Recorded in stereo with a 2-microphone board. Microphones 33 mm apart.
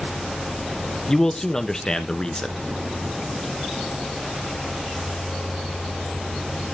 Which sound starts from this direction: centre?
A man speaking, at 1.1 s.